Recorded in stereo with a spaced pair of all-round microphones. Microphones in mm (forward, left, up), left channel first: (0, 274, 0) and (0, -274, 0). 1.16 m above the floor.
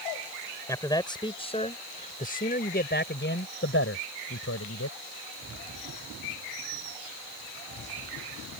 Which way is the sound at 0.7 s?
5° left (ahead or behind).